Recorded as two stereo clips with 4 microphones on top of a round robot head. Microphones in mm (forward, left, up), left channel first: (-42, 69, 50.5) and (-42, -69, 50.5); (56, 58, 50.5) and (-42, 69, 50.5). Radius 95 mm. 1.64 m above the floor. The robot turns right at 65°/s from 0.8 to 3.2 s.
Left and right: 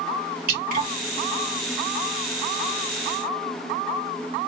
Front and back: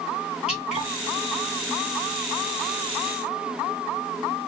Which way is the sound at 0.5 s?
100° right.